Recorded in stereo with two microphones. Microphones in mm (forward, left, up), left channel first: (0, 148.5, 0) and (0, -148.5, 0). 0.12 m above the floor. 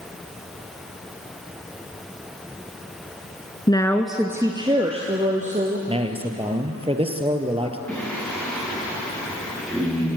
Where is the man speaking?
20° right (ahead or behind), 2.5 m.